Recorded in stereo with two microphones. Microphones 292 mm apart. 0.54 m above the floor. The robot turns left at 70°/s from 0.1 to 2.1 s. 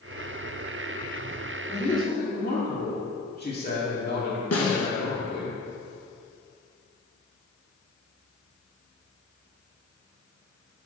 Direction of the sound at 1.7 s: 20° left (ahead or behind).